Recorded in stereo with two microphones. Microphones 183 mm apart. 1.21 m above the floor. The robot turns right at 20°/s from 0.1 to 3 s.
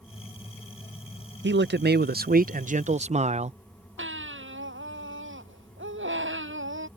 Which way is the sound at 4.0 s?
85° right.